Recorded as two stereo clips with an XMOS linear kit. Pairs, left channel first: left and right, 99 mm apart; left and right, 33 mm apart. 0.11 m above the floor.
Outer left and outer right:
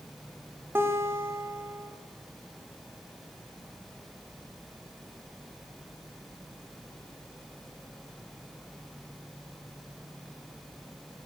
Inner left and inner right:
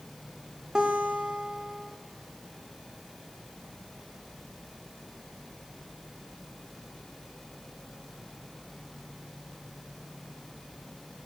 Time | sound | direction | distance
0.8 | a guitar | 25° right (ahead or behind) | 5.5 m